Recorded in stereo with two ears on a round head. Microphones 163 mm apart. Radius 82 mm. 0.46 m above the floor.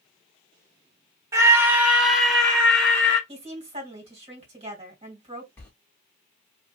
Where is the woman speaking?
35° right (ahead or behind), 1.9 m.